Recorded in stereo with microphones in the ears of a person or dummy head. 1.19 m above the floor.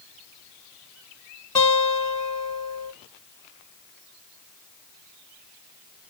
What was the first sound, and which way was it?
A guitar, 25° left (ahead or behind).